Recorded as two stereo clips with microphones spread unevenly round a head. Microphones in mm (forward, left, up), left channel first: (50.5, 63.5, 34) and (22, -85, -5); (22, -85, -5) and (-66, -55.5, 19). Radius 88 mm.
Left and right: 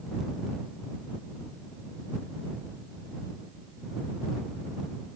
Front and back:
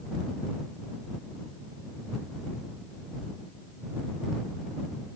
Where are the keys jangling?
No keys jangling in this recording.